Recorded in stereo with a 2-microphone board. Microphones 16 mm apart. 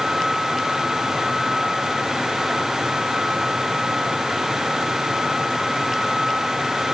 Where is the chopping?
No chopping in this recording.